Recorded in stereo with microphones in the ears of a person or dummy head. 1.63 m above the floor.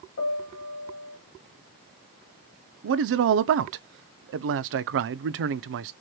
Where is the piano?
65° left (ahead or behind), 1.7 m.